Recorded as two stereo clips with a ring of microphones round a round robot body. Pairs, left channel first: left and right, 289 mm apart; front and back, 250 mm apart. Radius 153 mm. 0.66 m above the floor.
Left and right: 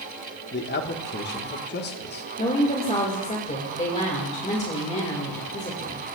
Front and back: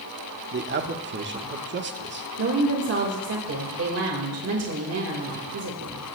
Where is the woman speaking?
155° left, 2.5 m.